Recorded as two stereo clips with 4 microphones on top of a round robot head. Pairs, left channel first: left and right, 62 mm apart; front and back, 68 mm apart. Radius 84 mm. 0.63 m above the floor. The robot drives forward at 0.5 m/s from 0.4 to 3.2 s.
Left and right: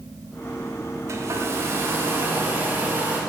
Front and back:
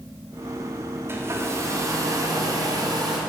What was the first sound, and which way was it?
A hair dryer, 125° right.